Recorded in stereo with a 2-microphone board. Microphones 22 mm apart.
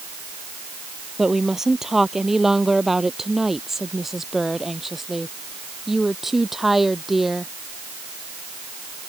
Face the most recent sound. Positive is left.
turn(degrees=-10)  # may be behind; listen again after turning